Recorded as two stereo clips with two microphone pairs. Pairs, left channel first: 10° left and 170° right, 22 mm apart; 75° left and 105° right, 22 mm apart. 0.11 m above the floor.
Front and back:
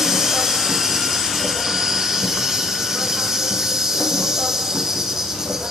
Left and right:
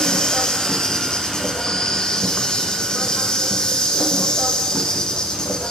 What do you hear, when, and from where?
0.0 s an insect: 130° left, 5.5 m